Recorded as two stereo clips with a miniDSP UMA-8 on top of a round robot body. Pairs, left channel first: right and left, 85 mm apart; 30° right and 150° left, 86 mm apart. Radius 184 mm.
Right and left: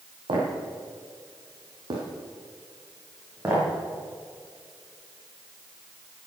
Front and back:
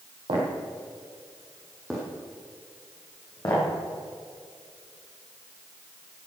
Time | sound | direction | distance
0.3 | footsteps | 120° left | 2.5 m